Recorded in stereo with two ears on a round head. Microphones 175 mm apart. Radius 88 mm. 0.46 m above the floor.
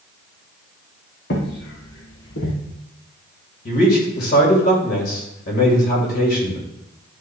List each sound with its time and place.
1.3 s footsteps: 60° left (ahead or behind), 3 m; by 2.5 s 70° left (ahead or behind), 2.5 m
3.6 s a man speaking: 50° left (ahead or behind), 2 m